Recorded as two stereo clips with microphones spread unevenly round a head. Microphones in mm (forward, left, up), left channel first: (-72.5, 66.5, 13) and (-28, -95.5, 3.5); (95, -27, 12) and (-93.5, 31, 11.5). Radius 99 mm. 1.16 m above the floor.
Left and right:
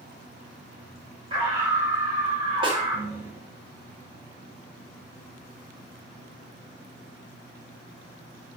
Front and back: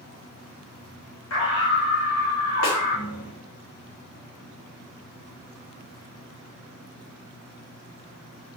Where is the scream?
10° right, 5 m.